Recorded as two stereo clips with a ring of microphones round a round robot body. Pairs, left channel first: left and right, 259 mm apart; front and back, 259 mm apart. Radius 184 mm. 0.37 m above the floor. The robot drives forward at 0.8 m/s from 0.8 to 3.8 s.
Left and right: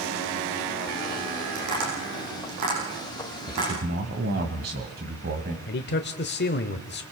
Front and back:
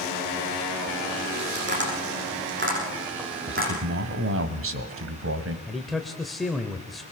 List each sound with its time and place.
1.6 s tapping: 130° right, 8 m; by 3.7 s 140° right, 9 m
3.5 s a man speaking: 145° right, 1.9 m; by 5.6 s 150° right, 2 m
5.7 s a man speaking: 90° left, 1.1 m